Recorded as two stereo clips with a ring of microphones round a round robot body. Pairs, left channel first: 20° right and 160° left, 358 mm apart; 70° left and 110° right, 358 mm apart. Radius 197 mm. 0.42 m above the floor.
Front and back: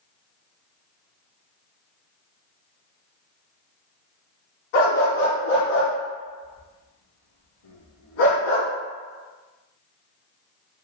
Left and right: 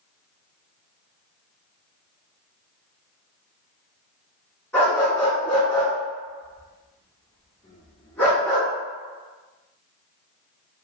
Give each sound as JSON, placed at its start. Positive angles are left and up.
{"t": 4.7, "sound": "a dog barking", "azimuth_deg": -20, "distance_m": 1.1}